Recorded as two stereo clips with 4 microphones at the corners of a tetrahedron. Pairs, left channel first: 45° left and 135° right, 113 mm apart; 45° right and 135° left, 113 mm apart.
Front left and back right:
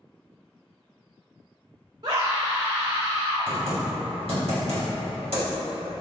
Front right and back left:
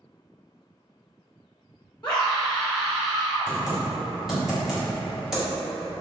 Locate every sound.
2.0 s a scream: 120° right, 0.9 m; by 3.5 s 140° right, 2.5 m
3.5 s typing on a keyboard: 140° right, 1.6 m